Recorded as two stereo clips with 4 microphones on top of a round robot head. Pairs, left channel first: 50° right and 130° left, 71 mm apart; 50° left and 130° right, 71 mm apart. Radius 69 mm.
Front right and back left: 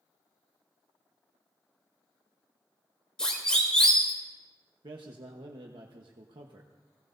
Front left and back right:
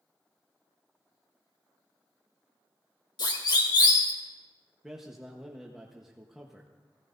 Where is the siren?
30° left, 3.5 m.